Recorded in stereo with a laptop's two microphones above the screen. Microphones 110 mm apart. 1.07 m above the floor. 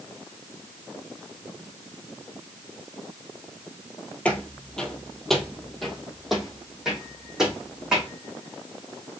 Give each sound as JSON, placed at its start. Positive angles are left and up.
{"t": 4.2, "sound": "footsteps", "side_deg": 10, "distance_m": 1.1}